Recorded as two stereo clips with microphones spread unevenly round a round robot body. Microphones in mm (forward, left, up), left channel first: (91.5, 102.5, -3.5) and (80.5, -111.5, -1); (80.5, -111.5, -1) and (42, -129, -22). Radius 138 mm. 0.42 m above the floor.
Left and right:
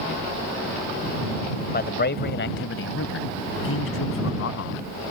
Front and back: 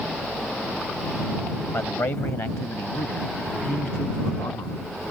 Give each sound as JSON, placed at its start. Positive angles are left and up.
{"t": 1.7, "sound": "a man speaking", "azimuth_deg": 55}